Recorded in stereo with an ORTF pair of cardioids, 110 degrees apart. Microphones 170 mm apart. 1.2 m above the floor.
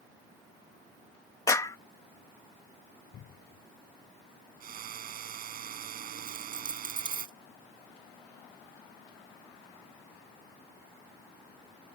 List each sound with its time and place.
1.5 s a clap: 20° left
3.1 s a cupboard door: 60° left
4.6 s a drill: 55° right
6.3 s a dropped coin: 30° right